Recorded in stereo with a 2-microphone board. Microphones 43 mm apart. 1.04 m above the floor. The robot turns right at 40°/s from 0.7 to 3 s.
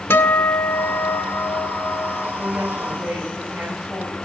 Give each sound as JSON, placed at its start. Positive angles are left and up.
{"t": 0.1, "sound": "a guitar", "azimuth_deg": 80, "distance_m": 1.5}
{"t": 2.4, "sound": "a woman speaking", "side_deg": -45, "distance_m": 7.5}